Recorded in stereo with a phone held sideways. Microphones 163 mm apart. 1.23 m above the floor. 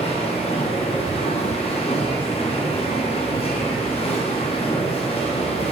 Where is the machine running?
35° left (ahead or behind), 0.7 m.